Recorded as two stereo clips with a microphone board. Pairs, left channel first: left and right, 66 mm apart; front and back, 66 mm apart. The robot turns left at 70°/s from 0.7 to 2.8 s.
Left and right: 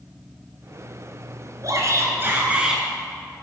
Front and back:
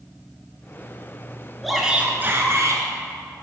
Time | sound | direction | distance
1.6 | a shout | 90° right | 2.0 m